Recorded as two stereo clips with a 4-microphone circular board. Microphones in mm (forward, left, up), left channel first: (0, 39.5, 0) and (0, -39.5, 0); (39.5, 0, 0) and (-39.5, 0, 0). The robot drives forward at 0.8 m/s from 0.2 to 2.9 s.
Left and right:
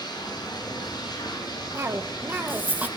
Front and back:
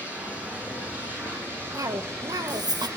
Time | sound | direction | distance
0.0 | running water | 110° left | 9 m
1.7 | a cough | 140° right | 1.4 m